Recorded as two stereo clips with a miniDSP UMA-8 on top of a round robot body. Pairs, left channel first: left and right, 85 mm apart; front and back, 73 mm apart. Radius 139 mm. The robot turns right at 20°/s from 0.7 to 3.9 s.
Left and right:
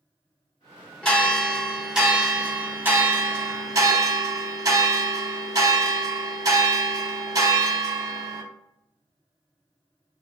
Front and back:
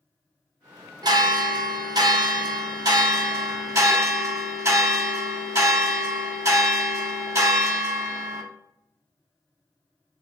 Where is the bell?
170° left, 1.1 m; by 8.4 s 135° right, 1.1 m.